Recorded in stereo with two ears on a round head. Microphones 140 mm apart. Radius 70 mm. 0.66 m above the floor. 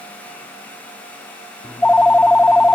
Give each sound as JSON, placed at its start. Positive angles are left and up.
{"t": 1.6, "sound": "a phone ringing", "side_deg": 5}